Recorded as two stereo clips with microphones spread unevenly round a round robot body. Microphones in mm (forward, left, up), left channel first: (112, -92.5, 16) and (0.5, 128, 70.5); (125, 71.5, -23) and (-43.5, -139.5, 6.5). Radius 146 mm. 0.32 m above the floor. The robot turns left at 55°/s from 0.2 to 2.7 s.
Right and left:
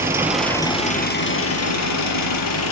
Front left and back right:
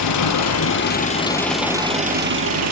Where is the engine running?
35° left, 5.5 m; by 2.7 s 100° right, 5.5 m.